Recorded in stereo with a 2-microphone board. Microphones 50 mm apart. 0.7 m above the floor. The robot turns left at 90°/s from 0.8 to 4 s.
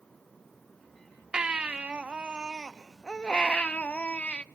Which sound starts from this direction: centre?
A baby crying, at 1.3 s.